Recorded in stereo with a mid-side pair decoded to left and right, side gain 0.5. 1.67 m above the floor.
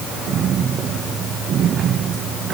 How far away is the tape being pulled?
No tape being pulled in this recording.